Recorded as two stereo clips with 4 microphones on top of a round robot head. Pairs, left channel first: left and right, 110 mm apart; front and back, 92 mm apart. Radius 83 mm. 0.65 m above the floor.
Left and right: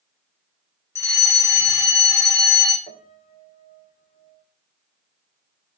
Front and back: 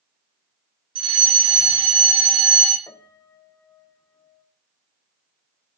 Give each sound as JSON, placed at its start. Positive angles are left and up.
{"t": 0.9, "sound": "a fire alarm", "azimuth_deg": 155, "distance_m": 6.0}
{"t": 2.9, "sound": "a piano", "azimuth_deg": 55, "distance_m": 3.0}